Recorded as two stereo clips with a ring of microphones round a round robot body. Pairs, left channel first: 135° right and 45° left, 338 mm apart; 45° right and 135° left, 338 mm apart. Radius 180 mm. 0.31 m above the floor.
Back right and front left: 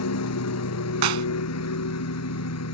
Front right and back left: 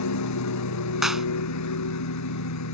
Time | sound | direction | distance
0.0 | a lawn mower | 90° right | ?
1.0 | a clap | 45° left | ?